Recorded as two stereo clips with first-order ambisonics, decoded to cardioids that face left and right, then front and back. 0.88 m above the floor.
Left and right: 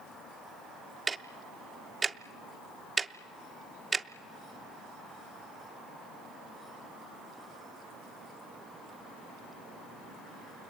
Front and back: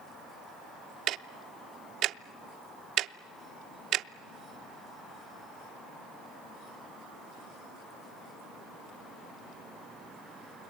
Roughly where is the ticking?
Behind.